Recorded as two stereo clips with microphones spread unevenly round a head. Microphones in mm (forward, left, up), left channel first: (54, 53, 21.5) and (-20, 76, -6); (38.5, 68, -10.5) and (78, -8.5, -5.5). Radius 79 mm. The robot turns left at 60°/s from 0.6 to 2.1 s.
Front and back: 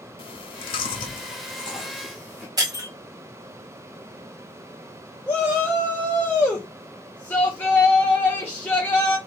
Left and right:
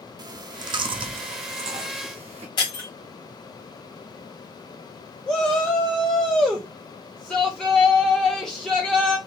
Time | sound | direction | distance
0.2 | chewing | 20° right | 0.6 m
2.6 | breaking glass | 120° left | 1.6 m
5.3 | a shout | 35° left | 0.9 m